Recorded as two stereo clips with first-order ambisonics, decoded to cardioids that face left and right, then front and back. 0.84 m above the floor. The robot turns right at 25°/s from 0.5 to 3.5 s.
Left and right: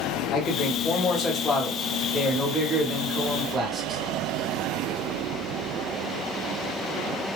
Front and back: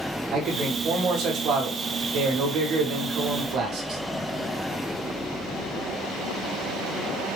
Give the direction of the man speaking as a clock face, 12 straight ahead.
8 o'clock.